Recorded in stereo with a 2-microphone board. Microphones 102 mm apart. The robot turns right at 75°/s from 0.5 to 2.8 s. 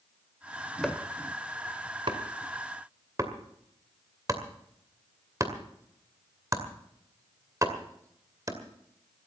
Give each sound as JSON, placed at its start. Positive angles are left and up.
{"t": 0.8, "sound": "chopping", "side_deg": 5, "distance_m": 2.0}